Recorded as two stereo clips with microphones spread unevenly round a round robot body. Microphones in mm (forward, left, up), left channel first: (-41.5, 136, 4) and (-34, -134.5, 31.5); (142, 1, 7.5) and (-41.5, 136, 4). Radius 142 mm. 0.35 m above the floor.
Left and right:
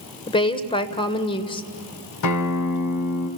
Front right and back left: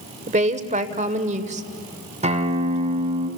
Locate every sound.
0.3 s a woman speaking: 135° left, 1.2 m
2.2 s a guitar: 85° left, 2 m